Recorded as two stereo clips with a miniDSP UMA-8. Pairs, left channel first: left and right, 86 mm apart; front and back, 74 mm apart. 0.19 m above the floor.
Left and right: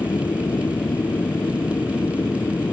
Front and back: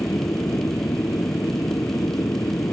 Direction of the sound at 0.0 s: 45° left.